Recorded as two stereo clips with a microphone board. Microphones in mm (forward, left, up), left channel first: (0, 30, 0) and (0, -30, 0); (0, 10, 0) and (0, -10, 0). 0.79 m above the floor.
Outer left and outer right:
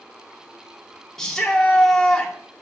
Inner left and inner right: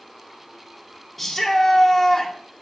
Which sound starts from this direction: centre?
A shout, at 1.2 s.